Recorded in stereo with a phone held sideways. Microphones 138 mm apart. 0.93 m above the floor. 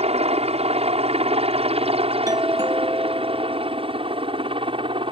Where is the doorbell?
25° right (ahead or behind).